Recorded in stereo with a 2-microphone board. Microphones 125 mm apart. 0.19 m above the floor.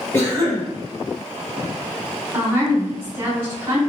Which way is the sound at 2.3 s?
20° right (ahead or behind).